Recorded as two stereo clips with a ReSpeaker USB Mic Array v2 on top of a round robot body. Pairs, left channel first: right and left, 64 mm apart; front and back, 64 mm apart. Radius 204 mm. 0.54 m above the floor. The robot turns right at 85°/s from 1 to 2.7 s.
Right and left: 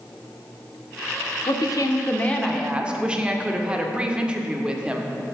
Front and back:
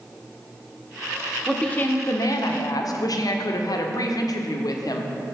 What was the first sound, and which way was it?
A woman speaking, 90° right.